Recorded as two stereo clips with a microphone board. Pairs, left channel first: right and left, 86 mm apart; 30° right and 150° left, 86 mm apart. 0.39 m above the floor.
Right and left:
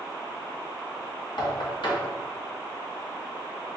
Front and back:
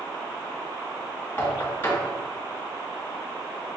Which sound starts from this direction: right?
Knocking, at 1.4 s.